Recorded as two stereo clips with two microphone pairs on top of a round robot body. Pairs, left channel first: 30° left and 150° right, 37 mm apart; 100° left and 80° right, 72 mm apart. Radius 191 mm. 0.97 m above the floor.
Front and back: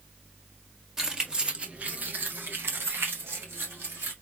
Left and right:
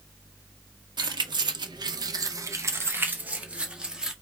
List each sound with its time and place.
1.0 s keys jangling: 75° right, 0.9 m; by 4.1 s 165° right, 1.4 m